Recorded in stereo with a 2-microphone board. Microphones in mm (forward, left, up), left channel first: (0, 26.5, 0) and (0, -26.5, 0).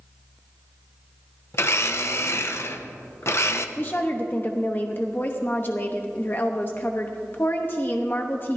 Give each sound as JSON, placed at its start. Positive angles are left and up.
{"t": 1.5, "sound": "a blender", "side_deg": 50, "distance_m": 0.7}
{"t": 3.8, "sound": "a woman speaking", "side_deg": 35, "distance_m": 0.8}